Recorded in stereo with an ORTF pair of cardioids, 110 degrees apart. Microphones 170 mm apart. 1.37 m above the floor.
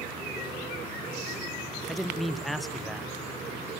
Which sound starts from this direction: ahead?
A man speaking, at 1.9 s.